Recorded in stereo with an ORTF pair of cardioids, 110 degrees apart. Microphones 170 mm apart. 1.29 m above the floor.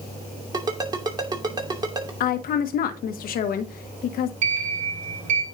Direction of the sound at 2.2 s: 60° left.